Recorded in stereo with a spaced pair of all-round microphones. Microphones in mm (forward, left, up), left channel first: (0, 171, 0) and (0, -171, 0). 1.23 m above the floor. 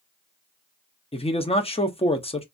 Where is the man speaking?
15° left (ahead or behind), 0.5 m.